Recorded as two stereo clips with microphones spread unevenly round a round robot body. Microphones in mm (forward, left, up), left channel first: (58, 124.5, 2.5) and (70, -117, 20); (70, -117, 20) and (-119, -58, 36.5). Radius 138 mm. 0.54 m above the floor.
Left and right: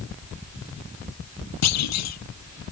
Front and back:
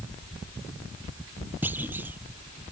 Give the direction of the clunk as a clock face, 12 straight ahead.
9 o'clock.